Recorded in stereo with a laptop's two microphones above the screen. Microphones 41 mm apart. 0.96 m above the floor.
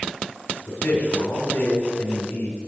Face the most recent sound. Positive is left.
turn(degrees=55)  # may be behind; listen again after turning